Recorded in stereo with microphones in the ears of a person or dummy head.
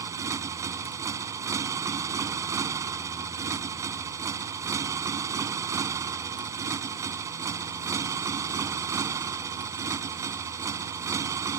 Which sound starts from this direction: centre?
A motorcycle, at 0.0 s.